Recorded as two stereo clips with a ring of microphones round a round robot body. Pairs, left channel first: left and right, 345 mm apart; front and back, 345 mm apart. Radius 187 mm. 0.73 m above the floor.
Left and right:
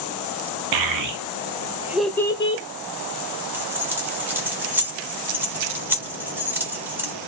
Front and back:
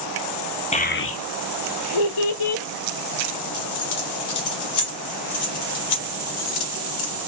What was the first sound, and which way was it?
A child speaking, 70° right.